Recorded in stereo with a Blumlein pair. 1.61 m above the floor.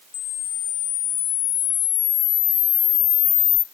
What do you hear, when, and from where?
0.1 s a camera shutter: 35° left, 0.6 m